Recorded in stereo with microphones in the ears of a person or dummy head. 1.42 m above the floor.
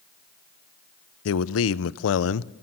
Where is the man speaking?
75° left (ahead or behind), 0.6 m.